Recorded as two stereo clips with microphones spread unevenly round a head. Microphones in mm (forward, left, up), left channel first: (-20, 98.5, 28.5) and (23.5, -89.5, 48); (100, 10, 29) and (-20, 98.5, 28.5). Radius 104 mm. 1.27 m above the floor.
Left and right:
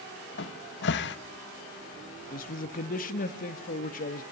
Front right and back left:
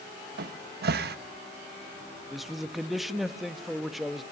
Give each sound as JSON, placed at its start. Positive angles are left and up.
{"t": 0.4, "sound": "a cupboard door", "azimuth_deg": 140, "distance_m": 1.1}
{"t": 2.3, "sound": "a man speaking", "azimuth_deg": 55, "distance_m": 1.7}